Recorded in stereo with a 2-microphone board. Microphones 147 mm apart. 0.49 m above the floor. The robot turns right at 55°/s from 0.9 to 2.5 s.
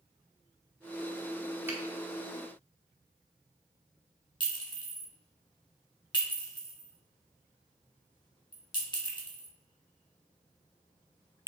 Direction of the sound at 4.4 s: 30° left (ahead or behind).